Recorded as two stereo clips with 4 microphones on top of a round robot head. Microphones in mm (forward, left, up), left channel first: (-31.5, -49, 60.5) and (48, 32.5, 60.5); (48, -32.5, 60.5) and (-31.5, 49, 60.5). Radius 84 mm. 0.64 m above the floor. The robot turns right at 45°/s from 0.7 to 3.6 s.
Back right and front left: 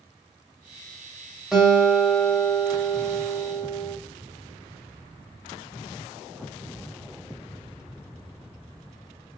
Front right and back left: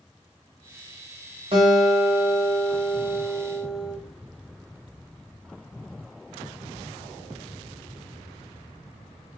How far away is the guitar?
About 1.3 m.